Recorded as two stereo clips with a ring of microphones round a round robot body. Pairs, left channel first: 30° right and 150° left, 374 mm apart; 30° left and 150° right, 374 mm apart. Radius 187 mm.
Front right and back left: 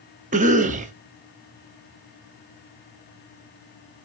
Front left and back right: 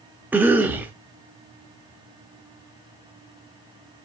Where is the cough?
135° left, 0.6 m.